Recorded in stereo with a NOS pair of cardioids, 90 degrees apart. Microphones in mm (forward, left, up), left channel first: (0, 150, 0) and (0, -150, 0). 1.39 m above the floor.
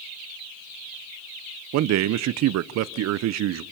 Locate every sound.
1.7 s a man speaking: 70° right, 0.7 m